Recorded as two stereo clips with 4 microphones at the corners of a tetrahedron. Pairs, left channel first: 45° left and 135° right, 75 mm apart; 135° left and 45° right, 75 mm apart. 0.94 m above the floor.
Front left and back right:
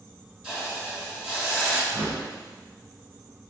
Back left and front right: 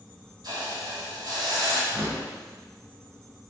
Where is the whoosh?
105° right, 1.1 m.